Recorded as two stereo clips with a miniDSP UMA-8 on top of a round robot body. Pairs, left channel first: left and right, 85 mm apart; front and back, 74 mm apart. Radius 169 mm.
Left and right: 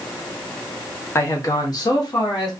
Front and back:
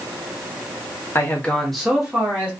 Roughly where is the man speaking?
Ahead left.